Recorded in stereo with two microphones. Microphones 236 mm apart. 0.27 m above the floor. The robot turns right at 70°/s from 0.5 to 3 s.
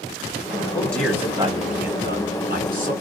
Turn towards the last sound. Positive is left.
turn(degrees=-40)